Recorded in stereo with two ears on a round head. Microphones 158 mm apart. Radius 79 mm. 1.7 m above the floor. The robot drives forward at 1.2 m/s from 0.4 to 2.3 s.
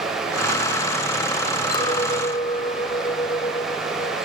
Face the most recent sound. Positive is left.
turn(degrees=25)  # may be behind; listen again after turning